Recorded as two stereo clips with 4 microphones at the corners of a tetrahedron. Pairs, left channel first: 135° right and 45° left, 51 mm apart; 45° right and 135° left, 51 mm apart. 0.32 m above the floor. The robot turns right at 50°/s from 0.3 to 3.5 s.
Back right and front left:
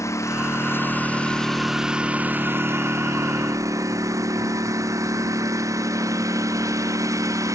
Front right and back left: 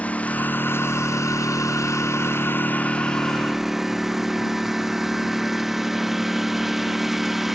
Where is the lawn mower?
110° right; by 7.5 s 50° left.